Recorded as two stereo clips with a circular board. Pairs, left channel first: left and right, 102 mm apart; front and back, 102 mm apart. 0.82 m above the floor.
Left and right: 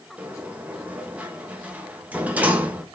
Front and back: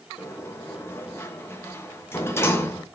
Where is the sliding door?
30° right, 0.8 m.